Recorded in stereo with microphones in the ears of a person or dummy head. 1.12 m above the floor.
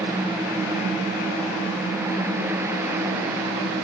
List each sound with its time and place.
Only background noise.